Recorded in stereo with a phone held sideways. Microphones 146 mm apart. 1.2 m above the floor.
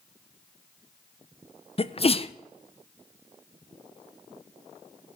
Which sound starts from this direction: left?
A sneeze, at 1.8 s.